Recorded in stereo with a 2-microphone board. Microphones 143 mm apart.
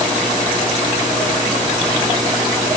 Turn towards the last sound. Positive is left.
No sound to turn to.